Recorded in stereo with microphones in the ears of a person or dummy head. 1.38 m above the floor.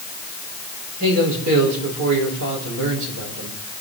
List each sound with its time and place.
1.0 s a man speaking: 80° right, 5 m